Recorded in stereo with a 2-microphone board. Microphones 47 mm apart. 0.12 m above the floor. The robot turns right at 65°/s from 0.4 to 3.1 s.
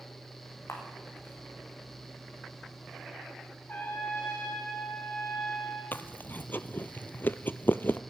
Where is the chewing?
40° left (ahead or behind), 0.8 m.